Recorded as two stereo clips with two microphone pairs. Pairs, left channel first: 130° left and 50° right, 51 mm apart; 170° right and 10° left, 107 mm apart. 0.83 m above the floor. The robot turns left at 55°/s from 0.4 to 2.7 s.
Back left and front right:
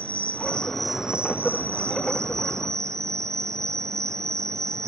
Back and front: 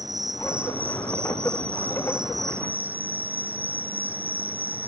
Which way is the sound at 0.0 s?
65° left.